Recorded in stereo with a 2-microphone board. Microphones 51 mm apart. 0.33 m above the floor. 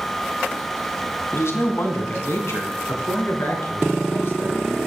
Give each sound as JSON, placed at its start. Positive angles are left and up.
{"t": 1.3, "sound": "a man speaking", "side_deg": 60, "distance_m": 2.0}